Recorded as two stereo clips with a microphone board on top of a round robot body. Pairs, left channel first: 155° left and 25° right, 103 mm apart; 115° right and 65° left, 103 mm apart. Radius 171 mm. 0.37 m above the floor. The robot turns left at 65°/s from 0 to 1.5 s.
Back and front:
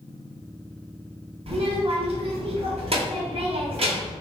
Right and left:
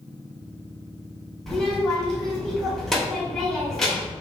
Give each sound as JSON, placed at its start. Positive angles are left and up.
{"t": 1.5, "sound": "a child speaking", "azimuth_deg": -25, "distance_m": 1.5}